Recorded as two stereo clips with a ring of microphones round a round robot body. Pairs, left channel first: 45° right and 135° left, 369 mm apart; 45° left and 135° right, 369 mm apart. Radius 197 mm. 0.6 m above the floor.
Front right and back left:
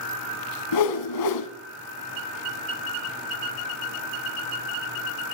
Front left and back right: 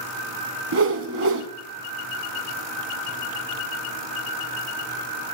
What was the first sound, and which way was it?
A whoosh, 80° right.